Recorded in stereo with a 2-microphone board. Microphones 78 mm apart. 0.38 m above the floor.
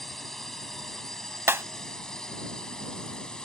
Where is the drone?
5° left (ahead or behind); by 3.5 s 10° left (ahead or behind).